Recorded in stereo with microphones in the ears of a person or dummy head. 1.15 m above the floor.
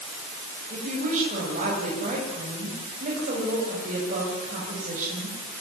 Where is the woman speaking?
40° right (ahead or behind), 7.5 m.